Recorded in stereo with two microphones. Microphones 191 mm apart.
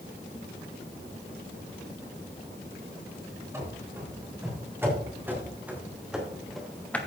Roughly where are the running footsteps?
Centre.